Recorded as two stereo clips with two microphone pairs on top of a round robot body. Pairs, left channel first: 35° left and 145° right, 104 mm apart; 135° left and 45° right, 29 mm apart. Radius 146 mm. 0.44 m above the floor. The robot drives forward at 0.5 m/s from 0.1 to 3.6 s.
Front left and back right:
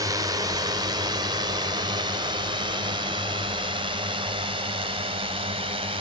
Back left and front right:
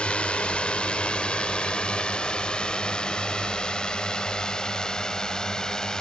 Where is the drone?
175° left; by 6.0 s 160° right.